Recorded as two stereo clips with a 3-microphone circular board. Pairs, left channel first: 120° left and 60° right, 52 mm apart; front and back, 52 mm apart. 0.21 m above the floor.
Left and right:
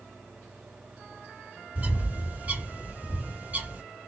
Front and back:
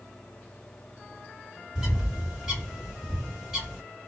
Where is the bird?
100° right, 2 m.